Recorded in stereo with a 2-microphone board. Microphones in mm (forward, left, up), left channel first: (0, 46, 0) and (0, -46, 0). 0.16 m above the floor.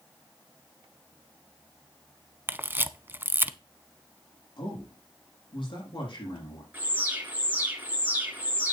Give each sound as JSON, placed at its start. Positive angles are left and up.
{"t": 2.5, "sound": "a camera shutter", "side_deg": -25, "distance_m": 0.6}
{"t": 4.6, "sound": "a man speaking", "side_deg": 70, "distance_m": 6.5}
{"t": 6.7, "sound": "an alarm", "side_deg": -20, "distance_m": 3.0}